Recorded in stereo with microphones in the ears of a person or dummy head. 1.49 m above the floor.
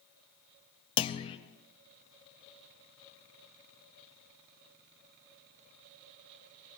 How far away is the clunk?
About 0.6 m.